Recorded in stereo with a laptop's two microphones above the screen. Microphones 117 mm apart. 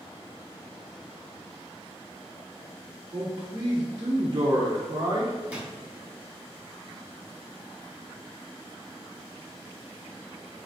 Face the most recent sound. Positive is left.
turn(degrees=-15)  # may be behind; listen again after turning